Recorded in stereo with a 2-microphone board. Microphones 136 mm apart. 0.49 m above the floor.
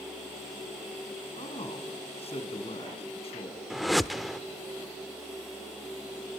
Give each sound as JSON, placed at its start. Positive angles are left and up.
{"t": 1.4, "sound": "a man speaking", "side_deg": 45, "distance_m": 5.5}
{"t": 3.7, "sound": "a whoosh", "side_deg": 0, "distance_m": 0.8}